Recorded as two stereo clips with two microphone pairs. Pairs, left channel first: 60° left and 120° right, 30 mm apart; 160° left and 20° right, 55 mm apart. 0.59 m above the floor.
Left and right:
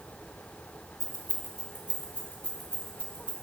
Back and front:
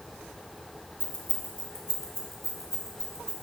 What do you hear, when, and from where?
1.0 s keys jangling: 115° left, 1.2 m; by 3.3 s 60° left, 2.5 m